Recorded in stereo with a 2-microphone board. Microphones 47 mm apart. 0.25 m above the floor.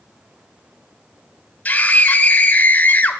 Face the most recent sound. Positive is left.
turn(degrees=35)  # may be behind; listen again after turning